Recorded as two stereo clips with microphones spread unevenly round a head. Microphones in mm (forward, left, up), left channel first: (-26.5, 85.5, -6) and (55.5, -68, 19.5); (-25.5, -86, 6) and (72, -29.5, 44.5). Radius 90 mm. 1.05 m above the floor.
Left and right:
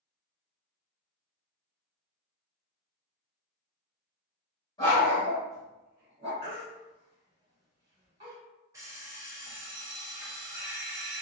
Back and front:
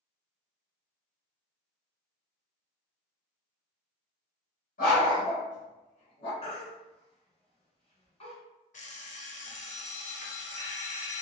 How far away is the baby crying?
About 1.9 m.